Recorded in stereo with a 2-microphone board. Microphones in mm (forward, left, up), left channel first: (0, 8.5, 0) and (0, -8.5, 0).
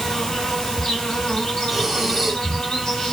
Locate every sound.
0.0 s an insect: 70° left (ahead or behind), 3 m
1.7 s breathing: 15° right (ahead or behind), 0.9 m